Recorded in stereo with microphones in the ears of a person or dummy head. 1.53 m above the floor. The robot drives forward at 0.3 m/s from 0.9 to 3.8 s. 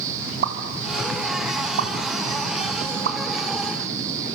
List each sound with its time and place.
0.4 s a pop: 75° right (ahead or behind), 3 m; by 3.2 s 80° right, 3 m